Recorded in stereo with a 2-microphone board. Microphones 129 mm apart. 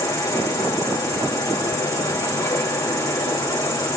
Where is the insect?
25° left (ahead or behind), 5 m.